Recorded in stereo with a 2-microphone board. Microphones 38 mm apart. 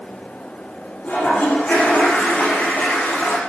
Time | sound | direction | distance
1.0 | a toilet flushing | 40° left (ahead or behind) | 10 m